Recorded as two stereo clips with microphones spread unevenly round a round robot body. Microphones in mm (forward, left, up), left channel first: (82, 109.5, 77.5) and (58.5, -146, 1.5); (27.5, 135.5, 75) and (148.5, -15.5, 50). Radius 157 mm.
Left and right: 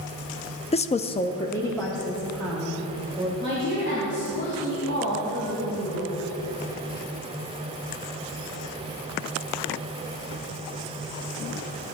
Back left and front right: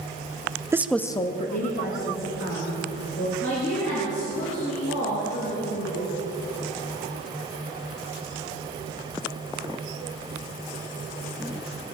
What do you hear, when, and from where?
0.7 s a woman speaking: 5° left, 0.6 m; by 3.3 s straight behind, 2.5 m
3.4 s a woman speaking: 155° left, 3 m